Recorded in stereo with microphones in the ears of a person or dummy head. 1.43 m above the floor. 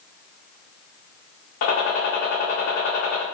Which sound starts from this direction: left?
A gunshot, at 1.6 s.